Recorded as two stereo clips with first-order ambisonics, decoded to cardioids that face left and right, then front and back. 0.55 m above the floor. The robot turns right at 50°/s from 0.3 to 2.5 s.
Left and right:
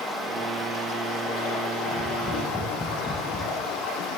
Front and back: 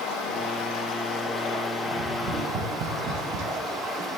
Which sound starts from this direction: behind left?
Tapping, at 1.9 s.